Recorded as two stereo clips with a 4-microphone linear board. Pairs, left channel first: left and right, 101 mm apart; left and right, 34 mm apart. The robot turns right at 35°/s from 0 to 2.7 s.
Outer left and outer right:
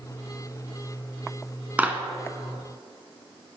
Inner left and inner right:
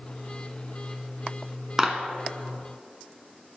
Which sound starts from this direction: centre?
A clap, at 1.8 s.